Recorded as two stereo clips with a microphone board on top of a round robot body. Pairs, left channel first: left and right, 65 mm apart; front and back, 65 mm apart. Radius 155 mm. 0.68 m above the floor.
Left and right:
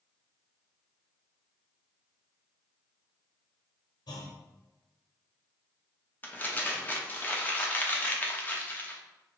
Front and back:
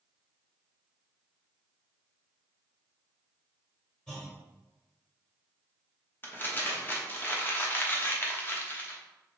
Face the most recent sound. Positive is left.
turn(degrees=40)